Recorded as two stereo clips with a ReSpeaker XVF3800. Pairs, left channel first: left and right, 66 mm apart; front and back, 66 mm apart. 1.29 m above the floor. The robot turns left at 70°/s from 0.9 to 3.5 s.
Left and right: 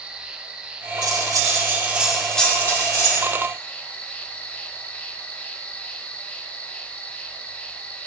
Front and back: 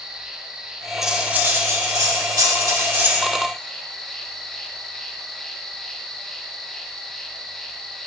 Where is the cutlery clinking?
95° right, 2.0 m; by 3.2 s 110° left, 2.0 m.